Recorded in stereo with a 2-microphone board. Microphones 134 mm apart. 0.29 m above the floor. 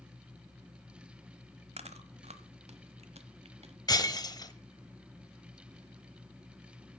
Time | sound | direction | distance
1.8 | chewing | 55° right (ahead or behind) | 1.1 m
3.9 | breaking glass | 30° left (ahead or behind) | 0.9 m